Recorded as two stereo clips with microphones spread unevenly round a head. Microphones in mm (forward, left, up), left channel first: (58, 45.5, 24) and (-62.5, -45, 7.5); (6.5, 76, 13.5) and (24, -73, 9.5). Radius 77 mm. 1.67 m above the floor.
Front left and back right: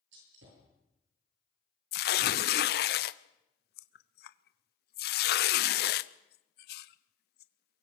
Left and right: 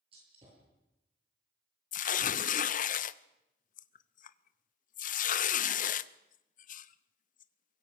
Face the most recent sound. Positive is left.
turn(degrees=60)